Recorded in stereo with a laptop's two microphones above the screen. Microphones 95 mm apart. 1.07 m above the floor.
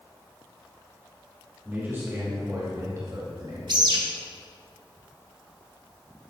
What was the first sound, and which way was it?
A man speaking, 20° right (ahead or behind).